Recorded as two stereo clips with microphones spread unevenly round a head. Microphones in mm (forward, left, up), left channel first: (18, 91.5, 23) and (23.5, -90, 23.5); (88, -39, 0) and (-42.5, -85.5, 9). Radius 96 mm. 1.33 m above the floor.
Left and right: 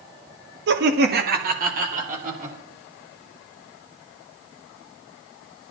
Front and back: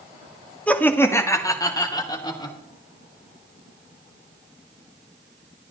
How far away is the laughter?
About 1.6 m.